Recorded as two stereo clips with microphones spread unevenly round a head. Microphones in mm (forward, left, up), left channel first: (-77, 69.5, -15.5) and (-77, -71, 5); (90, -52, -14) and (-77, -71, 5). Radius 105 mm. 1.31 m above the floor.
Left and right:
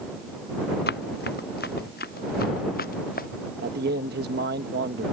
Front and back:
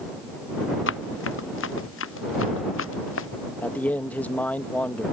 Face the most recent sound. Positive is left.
turn(degrees=-75)